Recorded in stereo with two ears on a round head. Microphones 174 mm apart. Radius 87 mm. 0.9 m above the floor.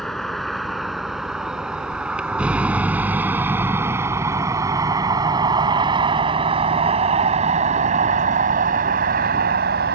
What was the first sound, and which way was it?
A vehicle, centre (ahead or behind).